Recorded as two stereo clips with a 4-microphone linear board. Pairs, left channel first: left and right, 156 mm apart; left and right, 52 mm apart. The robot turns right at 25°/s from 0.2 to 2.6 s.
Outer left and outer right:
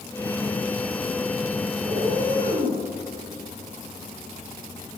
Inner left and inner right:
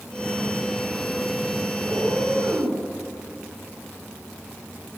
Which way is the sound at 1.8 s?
90° right.